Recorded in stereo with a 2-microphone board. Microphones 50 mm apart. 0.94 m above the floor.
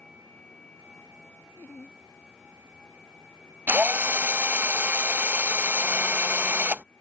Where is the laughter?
45° left (ahead or behind).